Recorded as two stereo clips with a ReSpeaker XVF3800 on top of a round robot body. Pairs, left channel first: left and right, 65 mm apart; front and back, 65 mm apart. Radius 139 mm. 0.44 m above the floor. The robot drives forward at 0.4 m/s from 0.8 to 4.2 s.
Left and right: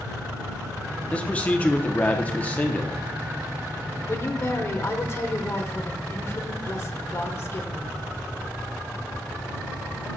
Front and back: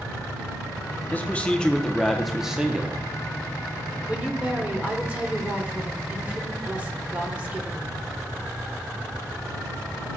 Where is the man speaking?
40° left, 1.1 m; by 3.1 s 135° left, 1.1 m.